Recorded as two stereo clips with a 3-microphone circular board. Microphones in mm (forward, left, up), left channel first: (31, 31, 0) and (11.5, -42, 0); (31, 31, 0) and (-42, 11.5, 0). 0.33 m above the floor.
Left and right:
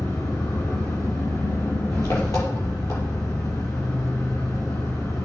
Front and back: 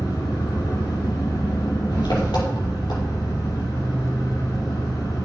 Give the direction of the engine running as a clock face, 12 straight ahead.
11 o'clock.